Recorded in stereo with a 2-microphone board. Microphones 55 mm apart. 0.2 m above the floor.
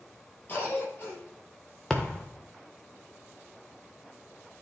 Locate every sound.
0.5 s a cough: 40° left (ahead or behind), 4 m
1.9 s a thud: 10° left (ahead or behind), 1.3 m